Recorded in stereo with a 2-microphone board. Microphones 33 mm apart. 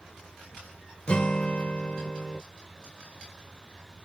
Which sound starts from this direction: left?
A guitar, at 1.1 s.